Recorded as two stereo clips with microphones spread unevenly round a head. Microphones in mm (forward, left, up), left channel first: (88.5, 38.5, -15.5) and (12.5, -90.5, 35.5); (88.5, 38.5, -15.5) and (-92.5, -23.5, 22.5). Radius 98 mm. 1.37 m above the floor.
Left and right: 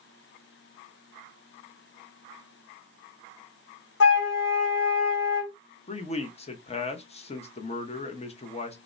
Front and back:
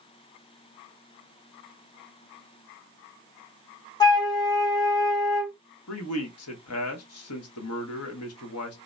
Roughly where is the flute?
Left.